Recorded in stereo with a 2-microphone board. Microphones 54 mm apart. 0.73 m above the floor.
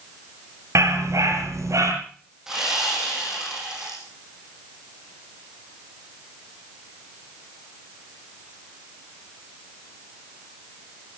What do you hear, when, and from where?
0.8 s a dog barking: 70° right (ahead or behind), 3.5 m; by 1.9 s 75° right (ahead or behind), 5 m
2.5 s sawing: 10° right (ahead or behind), 7 m